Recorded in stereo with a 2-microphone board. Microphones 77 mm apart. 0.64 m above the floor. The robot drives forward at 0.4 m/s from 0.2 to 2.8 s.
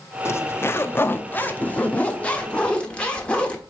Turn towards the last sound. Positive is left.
turn(degrees=15)  # may be behind; listen again after turning